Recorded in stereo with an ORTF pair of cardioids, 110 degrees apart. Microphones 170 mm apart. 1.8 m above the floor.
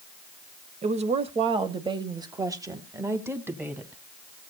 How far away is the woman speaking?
About 1.4 m.